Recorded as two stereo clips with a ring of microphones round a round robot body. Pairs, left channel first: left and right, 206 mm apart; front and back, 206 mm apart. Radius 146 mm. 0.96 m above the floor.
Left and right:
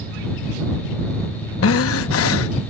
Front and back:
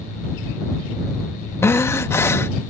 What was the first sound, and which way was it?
Breathing, 80° left.